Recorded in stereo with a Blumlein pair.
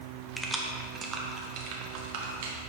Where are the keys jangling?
5° right, 1.0 m; by 2.5 s 55° right, 1.5 m.